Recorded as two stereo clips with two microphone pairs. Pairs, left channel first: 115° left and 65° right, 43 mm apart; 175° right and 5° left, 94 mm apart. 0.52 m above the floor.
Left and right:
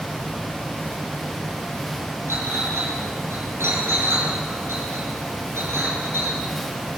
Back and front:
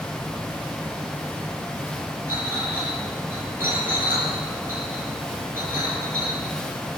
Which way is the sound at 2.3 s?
60° right.